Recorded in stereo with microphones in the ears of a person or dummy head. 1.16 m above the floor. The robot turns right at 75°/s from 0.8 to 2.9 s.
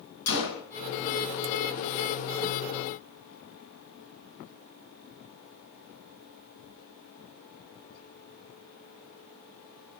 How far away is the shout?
I don't hear a shout.